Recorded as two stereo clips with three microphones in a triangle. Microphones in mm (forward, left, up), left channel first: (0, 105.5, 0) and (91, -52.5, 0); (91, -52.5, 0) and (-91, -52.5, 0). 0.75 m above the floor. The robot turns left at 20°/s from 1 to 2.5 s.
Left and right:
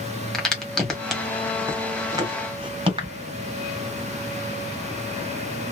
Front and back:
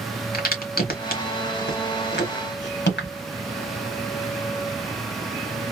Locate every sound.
0.3 s a crack: 35° left, 1.6 m; by 3.1 s 5° left, 1.6 m